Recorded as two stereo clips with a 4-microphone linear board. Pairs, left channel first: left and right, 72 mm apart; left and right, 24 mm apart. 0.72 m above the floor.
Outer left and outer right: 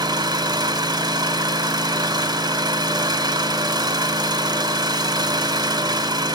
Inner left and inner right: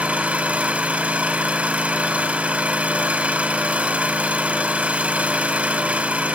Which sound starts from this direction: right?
An engine running, at 0.0 s.